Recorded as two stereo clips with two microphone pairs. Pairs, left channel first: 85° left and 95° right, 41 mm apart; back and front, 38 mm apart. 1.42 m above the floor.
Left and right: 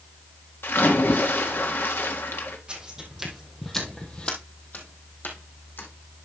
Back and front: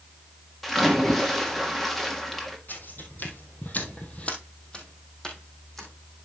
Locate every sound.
0.6 s a splash: 95° left, 1.6 m
2.7 s footsteps: 160° right, 3 m; by 5.9 s 100° left, 4 m